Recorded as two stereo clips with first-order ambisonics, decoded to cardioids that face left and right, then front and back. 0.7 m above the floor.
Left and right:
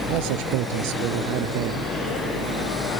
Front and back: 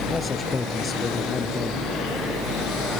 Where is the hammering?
I don't hear hammering.